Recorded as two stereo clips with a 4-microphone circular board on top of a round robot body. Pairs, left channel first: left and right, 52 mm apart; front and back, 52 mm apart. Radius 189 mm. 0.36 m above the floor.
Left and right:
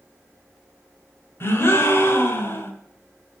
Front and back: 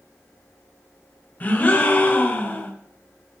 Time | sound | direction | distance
1.4 | a gasp | 55° left | 1.8 m